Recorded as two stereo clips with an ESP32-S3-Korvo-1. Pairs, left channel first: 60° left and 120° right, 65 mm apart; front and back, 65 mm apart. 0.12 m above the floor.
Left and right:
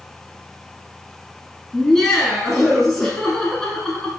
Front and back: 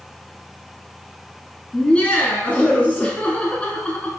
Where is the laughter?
10° right, 1.0 m.